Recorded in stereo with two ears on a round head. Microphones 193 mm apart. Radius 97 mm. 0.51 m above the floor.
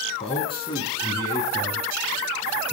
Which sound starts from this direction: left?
A man speaking, at 0.2 s.